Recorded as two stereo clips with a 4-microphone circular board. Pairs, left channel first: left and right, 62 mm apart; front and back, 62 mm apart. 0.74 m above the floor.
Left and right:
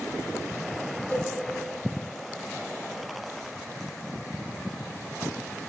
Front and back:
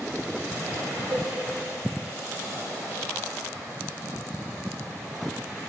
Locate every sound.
1.1 s a cowbell: 145° left, 0.8 m